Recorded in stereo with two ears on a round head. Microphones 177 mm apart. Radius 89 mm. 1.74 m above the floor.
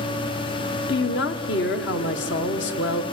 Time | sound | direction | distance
0.9 | a woman speaking | 60° left (ahead or behind) | 1.5 m